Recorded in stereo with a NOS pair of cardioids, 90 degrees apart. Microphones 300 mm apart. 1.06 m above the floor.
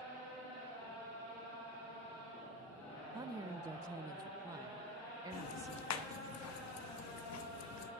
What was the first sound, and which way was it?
A woman speaking, 10° right.